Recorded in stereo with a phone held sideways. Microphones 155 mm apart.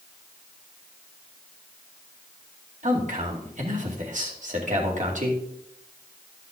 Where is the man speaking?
50° right (ahead or behind), 2.5 m.